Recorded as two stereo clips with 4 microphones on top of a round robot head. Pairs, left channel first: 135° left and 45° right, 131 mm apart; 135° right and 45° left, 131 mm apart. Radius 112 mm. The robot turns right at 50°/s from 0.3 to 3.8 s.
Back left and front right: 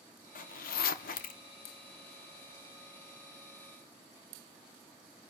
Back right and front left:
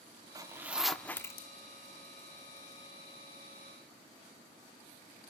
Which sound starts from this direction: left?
A zipper, at 0.3 s.